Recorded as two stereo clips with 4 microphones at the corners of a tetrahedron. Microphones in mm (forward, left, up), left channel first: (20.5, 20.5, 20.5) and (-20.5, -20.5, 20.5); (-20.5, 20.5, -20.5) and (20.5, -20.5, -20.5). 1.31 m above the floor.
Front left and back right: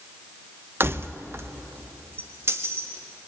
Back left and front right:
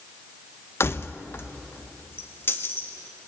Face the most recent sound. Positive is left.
turn(degrees=-175)